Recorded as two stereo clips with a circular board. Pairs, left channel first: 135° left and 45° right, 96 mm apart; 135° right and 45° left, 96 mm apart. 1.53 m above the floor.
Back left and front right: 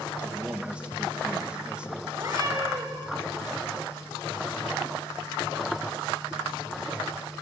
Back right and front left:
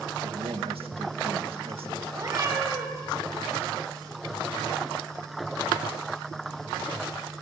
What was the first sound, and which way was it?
A man speaking, 35° left.